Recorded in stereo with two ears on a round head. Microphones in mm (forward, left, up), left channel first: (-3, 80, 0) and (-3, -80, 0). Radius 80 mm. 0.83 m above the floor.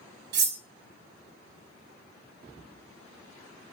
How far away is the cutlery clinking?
About 0.7 m.